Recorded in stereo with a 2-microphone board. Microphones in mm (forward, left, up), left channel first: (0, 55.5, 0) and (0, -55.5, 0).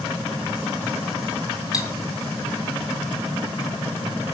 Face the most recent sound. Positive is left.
turn(degrees=35)  # may be behind; listen again after turning